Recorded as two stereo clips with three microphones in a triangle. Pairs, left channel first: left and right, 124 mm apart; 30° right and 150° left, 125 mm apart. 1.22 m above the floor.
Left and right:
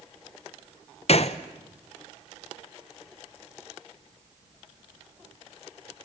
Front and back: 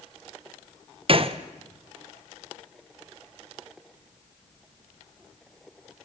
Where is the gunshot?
115° left, 0.9 m.